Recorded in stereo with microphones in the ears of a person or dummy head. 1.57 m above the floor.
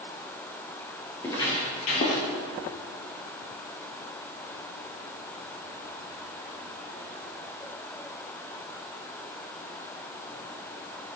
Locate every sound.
1.2 s footsteps: 15° left (ahead or behind), 2 m; by 2.2 s 50° left (ahead or behind), 3 m